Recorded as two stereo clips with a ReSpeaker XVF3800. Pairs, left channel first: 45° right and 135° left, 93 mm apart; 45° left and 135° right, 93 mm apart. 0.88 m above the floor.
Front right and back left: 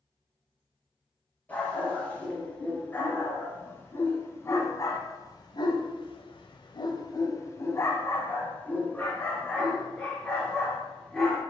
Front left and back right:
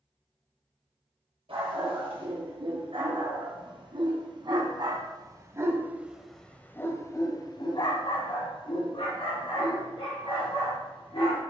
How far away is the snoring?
I don't hear snoring.